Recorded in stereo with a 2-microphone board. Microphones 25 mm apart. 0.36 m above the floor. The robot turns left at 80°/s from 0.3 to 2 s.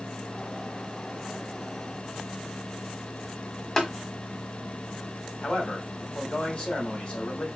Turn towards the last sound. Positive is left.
turn(degrees=55)  # may be behind; listen again after turning